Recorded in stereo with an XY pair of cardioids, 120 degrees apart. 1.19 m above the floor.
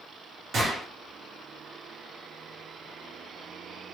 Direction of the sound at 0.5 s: 55° right.